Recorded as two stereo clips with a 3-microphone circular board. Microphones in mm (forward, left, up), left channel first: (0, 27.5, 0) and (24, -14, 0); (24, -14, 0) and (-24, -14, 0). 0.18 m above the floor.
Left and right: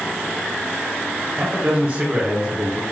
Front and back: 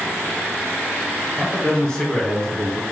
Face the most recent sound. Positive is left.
turn(degrees=-60)